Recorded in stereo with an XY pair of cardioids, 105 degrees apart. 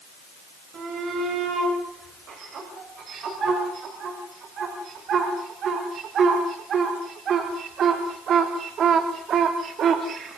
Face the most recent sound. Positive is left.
turn(degrees=-60)